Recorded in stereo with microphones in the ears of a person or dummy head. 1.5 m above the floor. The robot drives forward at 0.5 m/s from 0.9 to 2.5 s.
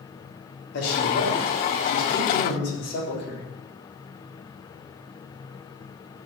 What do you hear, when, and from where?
0.7 s a man speaking: 70° left (ahead or behind), 3.5 m; by 3.5 s 55° left (ahead or behind), 4 m